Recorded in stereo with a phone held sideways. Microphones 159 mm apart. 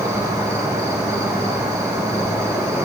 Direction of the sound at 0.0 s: 20° right (ahead or behind).